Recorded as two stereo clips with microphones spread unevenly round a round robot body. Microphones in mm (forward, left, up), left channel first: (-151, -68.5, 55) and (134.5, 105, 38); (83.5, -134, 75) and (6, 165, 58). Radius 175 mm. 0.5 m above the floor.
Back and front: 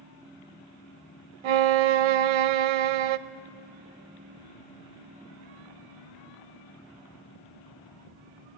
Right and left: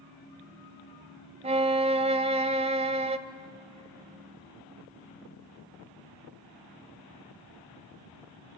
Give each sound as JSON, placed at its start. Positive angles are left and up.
{"t": 1.4, "sound": "a violin", "azimuth_deg": 30, "distance_m": 0.6}